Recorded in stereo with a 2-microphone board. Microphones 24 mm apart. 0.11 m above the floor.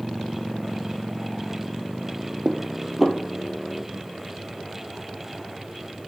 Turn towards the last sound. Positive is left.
turn(degrees=-10)  # may be behind; listen again after turning